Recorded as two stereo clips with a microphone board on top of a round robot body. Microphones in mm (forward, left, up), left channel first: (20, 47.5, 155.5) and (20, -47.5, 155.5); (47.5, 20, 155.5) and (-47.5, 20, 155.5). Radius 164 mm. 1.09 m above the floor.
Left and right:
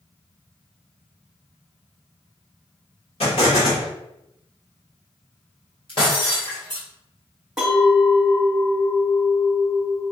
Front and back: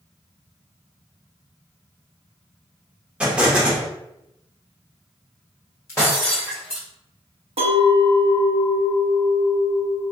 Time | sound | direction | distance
3.2 | an explosion | 100° left | 1.5 m
5.9 | breaking glass | 60° left | 1.1 m
7.6 | a clink | 170° right | 1.1 m